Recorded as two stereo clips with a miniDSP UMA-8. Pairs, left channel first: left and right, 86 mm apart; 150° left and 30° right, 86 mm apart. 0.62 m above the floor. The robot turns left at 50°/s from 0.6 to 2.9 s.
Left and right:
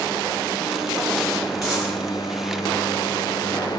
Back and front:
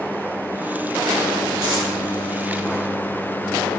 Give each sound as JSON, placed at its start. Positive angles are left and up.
{"t": 1.6, "sound": "a dropped coin", "azimuth_deg": 0, "distance_m": 2.5}